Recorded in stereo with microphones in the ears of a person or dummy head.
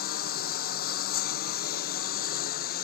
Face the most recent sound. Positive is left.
turn(degrees=55)  # may be behind; listen again after turning